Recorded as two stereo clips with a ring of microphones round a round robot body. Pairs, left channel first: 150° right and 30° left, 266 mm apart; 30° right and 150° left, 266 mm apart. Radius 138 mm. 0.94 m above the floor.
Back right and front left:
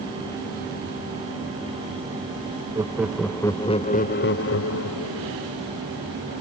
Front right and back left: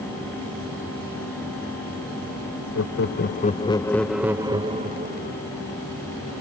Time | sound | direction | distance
2.8 | laughter | 45° right | ?